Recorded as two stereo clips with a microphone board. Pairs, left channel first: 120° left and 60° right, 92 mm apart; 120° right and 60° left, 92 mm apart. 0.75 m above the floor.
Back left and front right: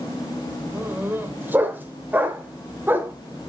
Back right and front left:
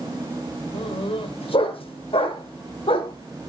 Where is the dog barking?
130° right, 1.3 m.